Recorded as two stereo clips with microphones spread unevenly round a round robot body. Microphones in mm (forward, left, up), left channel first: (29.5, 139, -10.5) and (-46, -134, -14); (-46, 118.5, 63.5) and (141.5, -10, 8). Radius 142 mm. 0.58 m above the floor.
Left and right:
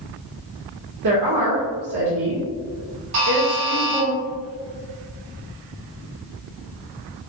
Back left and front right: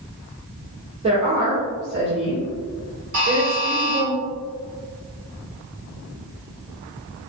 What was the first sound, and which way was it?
A woman speaking, 90° right.